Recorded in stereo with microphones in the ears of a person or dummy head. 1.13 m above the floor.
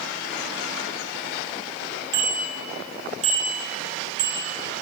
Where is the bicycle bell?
25° right (ahead or behind), 3 m; by 4.8 s 60° right (ahead or behind), 4.5 m.